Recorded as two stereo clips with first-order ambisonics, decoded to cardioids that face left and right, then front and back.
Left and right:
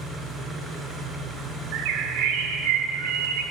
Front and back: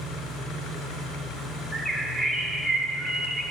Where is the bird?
90° right, 0.6 m.